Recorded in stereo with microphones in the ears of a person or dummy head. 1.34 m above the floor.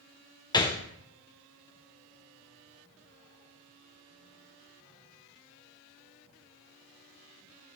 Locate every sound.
0.5 s a gunshot: 20° left (ahead or behind), 0.6 m